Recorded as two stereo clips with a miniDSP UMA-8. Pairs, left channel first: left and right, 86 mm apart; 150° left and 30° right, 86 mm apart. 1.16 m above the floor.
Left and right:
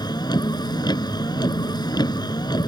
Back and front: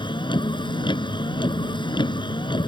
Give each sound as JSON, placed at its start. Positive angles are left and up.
{"t": 0.0, "sound": "a vehicle", "azimuth_deg": 125}